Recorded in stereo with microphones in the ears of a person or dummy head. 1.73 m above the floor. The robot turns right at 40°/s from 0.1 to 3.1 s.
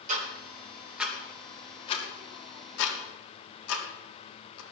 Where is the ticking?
40° right (ahead or behind), 3 m; by 4.6 s 80° left, 3 m.